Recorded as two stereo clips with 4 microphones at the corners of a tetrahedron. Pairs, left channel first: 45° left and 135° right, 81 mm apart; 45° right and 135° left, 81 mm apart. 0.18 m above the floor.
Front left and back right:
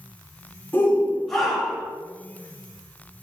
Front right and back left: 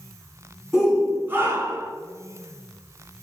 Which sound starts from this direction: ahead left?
A shout, at 0.7 s.